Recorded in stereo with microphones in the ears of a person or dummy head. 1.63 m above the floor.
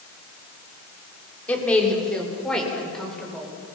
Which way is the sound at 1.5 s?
15° left (ahead or behind).